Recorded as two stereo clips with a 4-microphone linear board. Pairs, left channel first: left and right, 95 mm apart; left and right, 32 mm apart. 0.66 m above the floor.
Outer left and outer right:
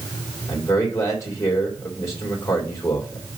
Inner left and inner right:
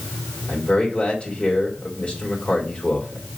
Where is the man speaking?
35° left (ahead or behind), 3 m.